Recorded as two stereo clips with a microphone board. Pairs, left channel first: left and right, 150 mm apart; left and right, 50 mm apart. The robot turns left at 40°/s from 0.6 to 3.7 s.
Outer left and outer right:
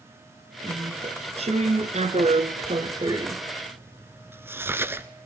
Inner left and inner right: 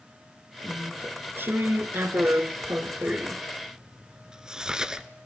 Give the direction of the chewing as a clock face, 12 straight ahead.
1 o'clock.